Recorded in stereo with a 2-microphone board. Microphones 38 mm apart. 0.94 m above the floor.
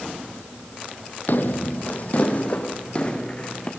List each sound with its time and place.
1.3 s footsteps: 55° left (ahead or behind), 1.6 m; by 3.7 s 25° left (ahead or behind), 3.5 m